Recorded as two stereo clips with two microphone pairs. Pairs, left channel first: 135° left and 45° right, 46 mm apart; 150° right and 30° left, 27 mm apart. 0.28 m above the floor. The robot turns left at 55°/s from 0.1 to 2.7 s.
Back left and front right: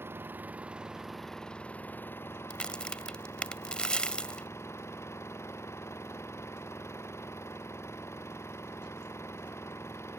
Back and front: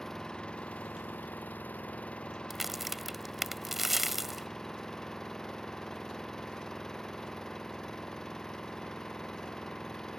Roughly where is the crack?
Left.